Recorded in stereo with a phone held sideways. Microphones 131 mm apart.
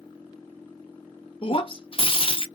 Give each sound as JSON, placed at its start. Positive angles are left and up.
{"t": 1.4, "sound": "breaking glass", "side_deg": 40, "distance_m": 0.8}